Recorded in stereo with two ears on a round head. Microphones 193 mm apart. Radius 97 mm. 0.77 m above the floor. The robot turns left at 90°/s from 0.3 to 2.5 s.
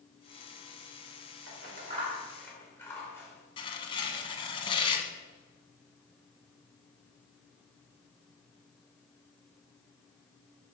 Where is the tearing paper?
25° left (ahead or behind), 1.6 m.